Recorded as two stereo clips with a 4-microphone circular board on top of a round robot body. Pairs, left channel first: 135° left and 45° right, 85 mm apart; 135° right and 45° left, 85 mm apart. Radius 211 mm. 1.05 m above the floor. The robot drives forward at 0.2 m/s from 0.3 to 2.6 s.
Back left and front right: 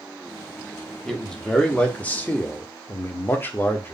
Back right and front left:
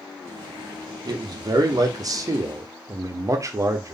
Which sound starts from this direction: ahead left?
A man speaking, at 1.1 s.